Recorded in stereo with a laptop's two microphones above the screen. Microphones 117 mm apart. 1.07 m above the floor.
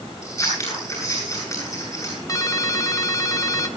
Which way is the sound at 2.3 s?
30° left (ahead or behind).